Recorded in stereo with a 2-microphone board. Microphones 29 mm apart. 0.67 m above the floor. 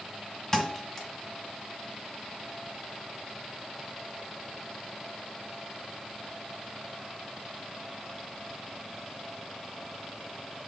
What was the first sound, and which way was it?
A thud, 15° left (ahead or behind).